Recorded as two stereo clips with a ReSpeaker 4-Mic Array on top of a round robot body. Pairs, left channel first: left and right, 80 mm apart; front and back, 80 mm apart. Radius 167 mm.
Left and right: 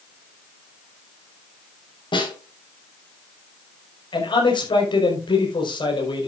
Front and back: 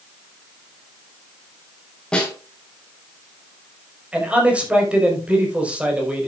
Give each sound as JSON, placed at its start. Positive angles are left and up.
{"t": 2.1, "sound": "a snare drum", "azimuth_deg": 80, "distance_m": 4.5}
{"t": 4.1, "sound": "a man speaking", "azimuth_deg": 105, "distance_m": 4.5}